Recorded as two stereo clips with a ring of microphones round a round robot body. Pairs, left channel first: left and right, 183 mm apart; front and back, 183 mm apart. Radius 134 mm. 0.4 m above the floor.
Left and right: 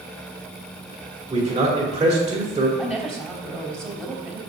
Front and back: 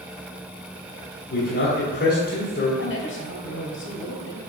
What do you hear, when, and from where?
1.3 s a man speaking: 30° right, 2 m
2.8 s a woman speaking: straight ahead, 3 m